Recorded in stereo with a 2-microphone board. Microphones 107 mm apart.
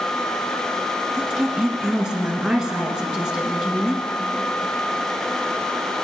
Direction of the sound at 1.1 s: 5° right (ahead or behind).